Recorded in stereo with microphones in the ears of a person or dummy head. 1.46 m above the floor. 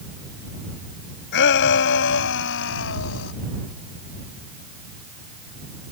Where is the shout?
60° left (ahead or behind); by 3.3 s 65° left (ahead or behind).